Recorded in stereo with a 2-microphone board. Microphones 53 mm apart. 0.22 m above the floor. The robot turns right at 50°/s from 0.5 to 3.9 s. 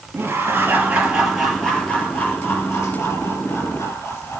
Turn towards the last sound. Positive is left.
turn(degrees=120)